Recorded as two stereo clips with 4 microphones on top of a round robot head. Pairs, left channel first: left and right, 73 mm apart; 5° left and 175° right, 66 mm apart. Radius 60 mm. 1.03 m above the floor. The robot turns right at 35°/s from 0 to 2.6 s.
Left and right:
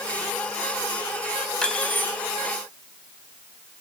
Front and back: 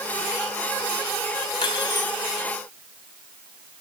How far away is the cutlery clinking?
About 3.5 m.